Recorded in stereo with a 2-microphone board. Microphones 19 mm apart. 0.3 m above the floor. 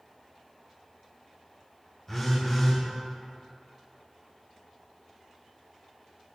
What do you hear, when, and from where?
2.1 s a phone buzzing: 25° left (ahead or behind), 1.7 m